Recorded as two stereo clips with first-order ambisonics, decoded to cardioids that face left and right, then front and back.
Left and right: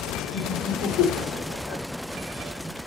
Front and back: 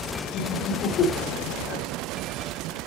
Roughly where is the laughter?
Ahead left.